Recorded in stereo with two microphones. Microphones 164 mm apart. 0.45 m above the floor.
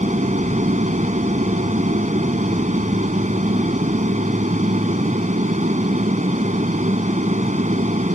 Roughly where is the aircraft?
Right.